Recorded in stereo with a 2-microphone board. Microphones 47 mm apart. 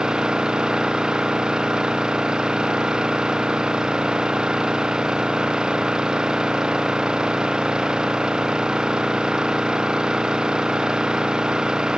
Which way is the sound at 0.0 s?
15° right (ahead or behind).